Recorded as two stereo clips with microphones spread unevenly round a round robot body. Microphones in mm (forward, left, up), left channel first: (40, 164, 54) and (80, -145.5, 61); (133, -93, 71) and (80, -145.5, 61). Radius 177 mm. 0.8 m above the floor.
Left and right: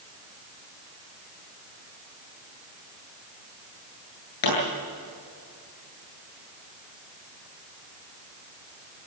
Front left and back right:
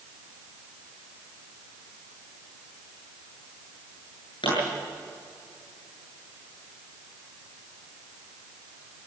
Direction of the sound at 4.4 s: 85° left.